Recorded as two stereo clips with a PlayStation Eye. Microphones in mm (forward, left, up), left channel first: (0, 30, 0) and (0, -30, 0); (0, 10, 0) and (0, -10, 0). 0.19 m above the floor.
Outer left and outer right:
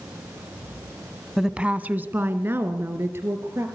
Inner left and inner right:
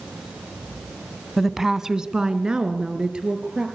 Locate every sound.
1.4 s a woman speaking: 5° right (ahead or behind), 1.0 m; by 3.7 s 45° right (ahead or behind), 3.5 m